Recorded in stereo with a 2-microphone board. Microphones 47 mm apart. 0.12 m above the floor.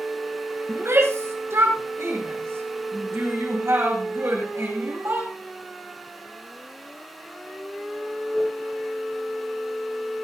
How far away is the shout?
About 5 m.